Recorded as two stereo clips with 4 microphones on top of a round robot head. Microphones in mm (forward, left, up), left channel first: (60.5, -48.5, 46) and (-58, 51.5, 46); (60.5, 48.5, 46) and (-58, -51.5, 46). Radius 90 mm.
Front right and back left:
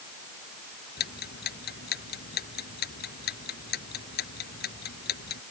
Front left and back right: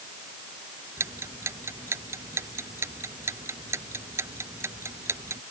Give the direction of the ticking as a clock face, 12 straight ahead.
2 o'clock.